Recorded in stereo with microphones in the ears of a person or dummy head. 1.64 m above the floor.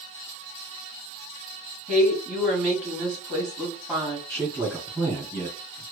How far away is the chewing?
I don't hear chewing.